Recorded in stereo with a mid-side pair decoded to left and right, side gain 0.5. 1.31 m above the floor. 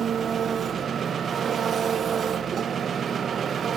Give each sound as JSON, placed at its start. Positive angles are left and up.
{"t": 0.0, "sound": "an engine running", "azimuth_deg": -45, "distance_m": 1.2}